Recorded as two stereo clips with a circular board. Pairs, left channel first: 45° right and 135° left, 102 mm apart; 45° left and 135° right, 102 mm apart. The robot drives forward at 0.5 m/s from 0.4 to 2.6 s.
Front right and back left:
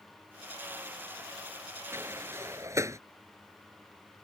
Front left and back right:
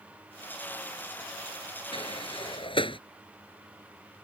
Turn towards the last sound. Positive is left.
turn(degrees=75)